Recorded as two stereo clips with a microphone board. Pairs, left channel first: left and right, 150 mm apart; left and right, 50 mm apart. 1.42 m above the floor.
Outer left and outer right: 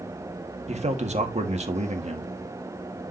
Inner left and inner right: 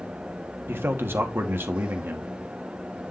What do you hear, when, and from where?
0.7 s a man speaking: 50° right (ahead or behind), 1.7 m